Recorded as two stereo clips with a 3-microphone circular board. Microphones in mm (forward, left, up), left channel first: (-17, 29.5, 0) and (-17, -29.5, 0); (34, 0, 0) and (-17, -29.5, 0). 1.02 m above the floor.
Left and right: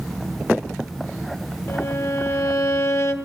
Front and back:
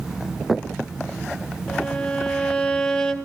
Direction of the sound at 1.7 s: 105° left.